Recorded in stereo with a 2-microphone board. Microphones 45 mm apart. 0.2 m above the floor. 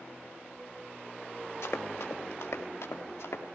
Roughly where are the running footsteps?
Left.